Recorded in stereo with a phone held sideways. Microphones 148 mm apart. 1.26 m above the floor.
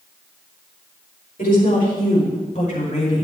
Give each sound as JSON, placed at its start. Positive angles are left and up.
{"t": 1.4, "sound": "a woman speaking", "side_deg": 75, "distance_m": 5.0}